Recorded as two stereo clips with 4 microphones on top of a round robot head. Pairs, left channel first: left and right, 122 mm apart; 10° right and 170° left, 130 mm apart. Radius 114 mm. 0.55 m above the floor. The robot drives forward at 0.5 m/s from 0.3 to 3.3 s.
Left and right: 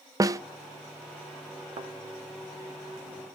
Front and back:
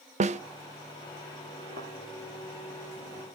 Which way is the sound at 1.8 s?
140° right.